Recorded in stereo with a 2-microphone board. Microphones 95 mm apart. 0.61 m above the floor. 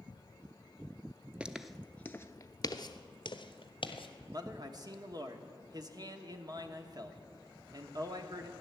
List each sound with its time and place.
1.4 s footsteps: 10° right (ahead or behind), 0.6 m; by 4.1 s 65° left (ahead or behind), 1.3 m
4.3 s a man speaking: 45° right (ahead or behind), 1.1 m